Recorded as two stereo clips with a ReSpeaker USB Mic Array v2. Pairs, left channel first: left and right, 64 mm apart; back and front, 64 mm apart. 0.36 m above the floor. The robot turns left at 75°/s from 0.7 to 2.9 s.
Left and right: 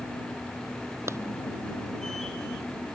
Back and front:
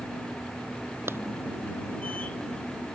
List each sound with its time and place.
1.1 s a clap: 45° right; by 1.2 s 55° right